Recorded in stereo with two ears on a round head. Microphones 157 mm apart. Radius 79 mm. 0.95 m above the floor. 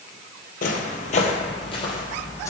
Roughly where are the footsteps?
Left.